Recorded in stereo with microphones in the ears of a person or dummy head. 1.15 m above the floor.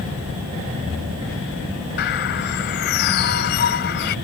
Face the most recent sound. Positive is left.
turn(degrees=55)  # may be behind; listen again after turning